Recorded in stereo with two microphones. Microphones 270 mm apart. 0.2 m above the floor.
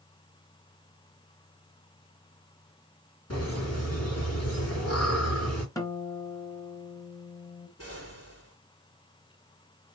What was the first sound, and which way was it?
Laughter, 60° left (ahead or behind).